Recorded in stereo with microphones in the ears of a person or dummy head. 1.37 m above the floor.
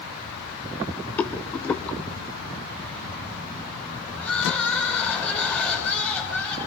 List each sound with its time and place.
1.2 s a rattle: 10° left (ahead or behind), 0.8 m
4.2 s crying: 5° left (ahead or behind), 5.5 m